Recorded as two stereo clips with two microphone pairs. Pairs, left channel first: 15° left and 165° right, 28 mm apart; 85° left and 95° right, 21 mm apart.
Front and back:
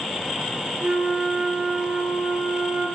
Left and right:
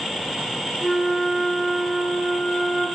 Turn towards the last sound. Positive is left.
turn(degrees=145)